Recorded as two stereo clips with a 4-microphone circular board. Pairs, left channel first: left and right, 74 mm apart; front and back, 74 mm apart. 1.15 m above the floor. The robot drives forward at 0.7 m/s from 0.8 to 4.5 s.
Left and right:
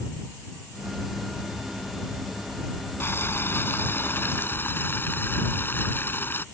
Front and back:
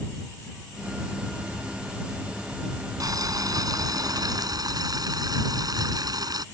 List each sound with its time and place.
3.0 s boiling: 150° left; by 6.5 s 155° left